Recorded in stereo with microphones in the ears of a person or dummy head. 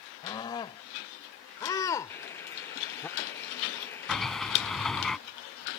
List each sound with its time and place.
0.2 s a scream: 20° left (ahead or behind); by 3.1 s 5° left (ahead or behind)
2.1 s boiling: 20° left (ahead or behind)
4.1 s a sliding door: 5° left (ahead or behind)